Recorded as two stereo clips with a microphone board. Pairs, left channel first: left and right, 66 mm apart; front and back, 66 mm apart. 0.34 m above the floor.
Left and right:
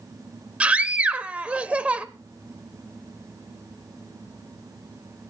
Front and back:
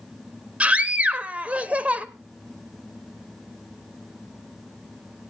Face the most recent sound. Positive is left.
turn(degrees=-140)